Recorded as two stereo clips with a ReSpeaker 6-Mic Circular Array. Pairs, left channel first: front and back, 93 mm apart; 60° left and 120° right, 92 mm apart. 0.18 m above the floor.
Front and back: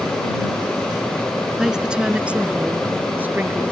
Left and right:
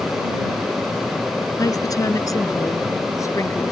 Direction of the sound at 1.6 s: 95° left.